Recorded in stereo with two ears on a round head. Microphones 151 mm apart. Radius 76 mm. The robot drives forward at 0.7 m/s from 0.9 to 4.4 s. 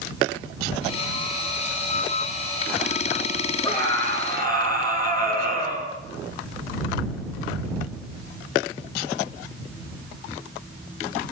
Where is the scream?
25° left (ahead or behind), 8 m; by 5.9 s 20° left (ahead or behind), 8.5 m.